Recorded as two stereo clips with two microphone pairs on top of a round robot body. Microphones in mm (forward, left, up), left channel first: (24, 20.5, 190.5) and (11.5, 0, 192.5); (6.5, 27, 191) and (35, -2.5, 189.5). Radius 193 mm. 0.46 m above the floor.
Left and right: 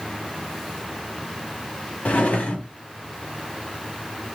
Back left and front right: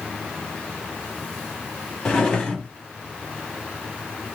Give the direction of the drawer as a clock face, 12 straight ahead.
10 o'clock.